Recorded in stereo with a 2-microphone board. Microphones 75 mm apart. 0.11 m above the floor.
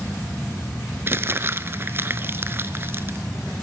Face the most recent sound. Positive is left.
turn(degrees=-30)  # may be behind; listen again after turning